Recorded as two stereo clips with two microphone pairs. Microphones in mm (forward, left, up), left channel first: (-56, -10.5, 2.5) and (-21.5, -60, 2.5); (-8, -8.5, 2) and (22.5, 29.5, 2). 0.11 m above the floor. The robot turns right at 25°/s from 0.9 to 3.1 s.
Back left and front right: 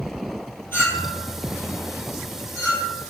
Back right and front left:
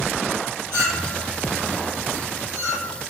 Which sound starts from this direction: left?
A clink, at 0.7 s.